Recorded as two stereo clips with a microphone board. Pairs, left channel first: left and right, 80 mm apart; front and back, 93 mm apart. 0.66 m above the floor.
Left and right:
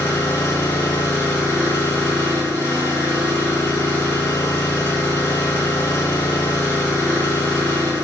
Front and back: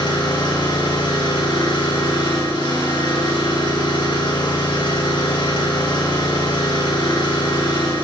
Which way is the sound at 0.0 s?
35° left.